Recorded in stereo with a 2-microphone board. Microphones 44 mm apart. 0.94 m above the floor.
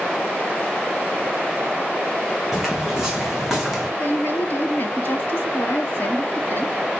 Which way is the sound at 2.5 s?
5° right (ahead or behind).